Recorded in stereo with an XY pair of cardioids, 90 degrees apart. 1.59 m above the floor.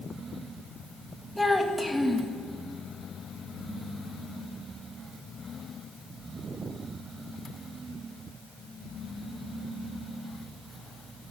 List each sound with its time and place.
1.4 s a child speaking: straight ahead, 2 m